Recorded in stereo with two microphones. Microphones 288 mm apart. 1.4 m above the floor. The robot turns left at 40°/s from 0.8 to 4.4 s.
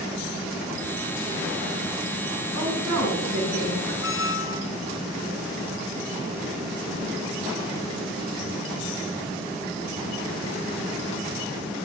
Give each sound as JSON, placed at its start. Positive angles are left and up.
{"t": 2.5, "sound": "a woman speaking", "azimuth_deg": -90, "distance_m": 5.0}
{"t": 4.0, "sound": "a squeak", "side_deg": 45, "distance_m": 0.7}